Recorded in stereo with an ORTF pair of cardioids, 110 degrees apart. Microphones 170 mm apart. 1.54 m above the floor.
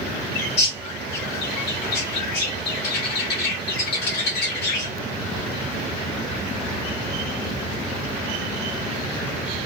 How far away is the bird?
About 3.5 m.